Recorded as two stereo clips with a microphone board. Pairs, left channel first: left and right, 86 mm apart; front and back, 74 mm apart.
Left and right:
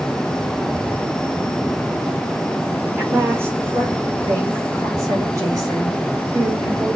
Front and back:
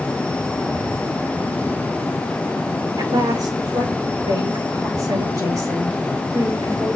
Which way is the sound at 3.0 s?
155° right.